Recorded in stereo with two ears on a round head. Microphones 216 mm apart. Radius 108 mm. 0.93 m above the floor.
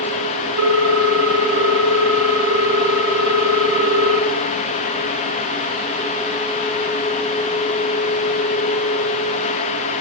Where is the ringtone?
75° right (ahead or behind), 2.5 m.